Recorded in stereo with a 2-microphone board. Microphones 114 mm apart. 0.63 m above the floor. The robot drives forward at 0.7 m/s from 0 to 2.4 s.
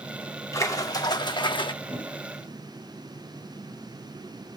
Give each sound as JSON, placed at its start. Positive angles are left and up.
{"t": 0.5, "sound": "a splash", "side_deg": 30, "distance_m": 1.2}
{"t": 1.8, "sound": "a whoosh", "side_deg": -25, "distance_m": 4.0}